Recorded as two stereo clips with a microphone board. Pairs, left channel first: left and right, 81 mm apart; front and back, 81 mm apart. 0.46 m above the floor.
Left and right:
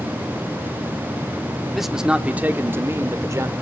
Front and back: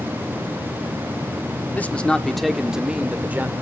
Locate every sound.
1.7 s a man speaking: straight ahead, 1.0 m; by 3.5 s 120° right, 1.4 m